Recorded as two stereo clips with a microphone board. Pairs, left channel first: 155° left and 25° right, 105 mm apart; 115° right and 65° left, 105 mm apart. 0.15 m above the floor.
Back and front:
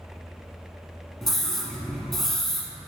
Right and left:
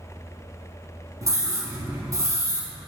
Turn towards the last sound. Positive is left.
turn(degrees=75)